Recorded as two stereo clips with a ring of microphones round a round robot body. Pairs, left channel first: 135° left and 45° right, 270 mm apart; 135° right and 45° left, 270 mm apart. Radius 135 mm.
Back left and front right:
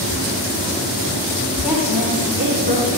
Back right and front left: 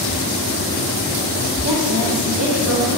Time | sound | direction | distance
1.6 | a woman speaking | 40° left | 2.5 m